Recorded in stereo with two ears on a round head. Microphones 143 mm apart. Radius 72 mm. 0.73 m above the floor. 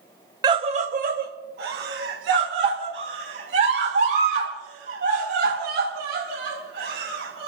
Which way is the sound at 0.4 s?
25° right (ahead or behind).